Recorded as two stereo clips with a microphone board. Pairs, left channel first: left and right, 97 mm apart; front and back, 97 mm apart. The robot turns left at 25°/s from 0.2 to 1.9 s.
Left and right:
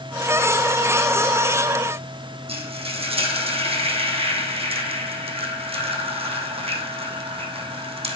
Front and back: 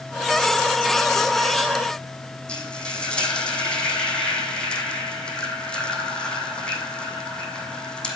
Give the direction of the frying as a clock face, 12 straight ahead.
3 o'clock.